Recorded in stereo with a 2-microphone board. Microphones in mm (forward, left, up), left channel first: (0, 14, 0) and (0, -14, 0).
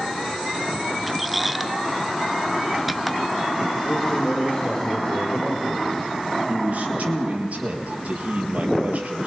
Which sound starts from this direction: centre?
A squeak, at 1.1 s.